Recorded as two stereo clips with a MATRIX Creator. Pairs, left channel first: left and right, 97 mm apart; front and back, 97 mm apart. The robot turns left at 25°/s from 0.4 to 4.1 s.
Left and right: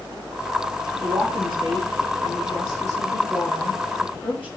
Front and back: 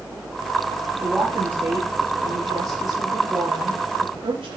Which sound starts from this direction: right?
A woman speaking, at 1.0 s.